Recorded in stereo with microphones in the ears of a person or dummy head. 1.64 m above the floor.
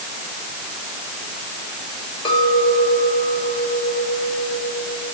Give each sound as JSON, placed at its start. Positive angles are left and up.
{"t": 2.2, "sound": "a clink", "side_deg": 30, "distance_m": 6.0}